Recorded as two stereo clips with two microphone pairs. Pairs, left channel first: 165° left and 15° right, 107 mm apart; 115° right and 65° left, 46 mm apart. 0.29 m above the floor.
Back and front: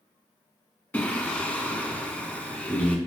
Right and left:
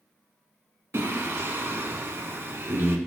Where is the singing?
90° left, 1.1 m.